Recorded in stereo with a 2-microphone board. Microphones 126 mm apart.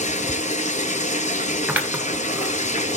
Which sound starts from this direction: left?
Running water, at 0.0 s.